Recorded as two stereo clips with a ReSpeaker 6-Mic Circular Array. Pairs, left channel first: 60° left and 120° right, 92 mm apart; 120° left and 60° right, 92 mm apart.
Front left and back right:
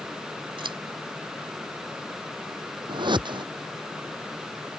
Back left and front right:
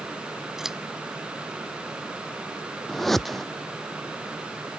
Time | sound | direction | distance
0.6 | scissors | 145° right | ?
2.9 | a whoosh | 150° right | ?